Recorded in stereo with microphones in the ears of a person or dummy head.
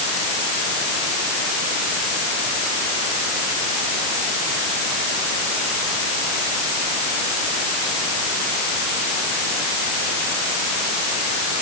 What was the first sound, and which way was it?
Only background noise.